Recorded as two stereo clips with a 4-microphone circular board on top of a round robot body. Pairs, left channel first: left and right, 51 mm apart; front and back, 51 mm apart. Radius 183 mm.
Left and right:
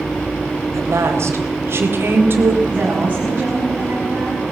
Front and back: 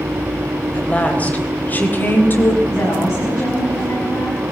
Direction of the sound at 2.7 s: 30° right.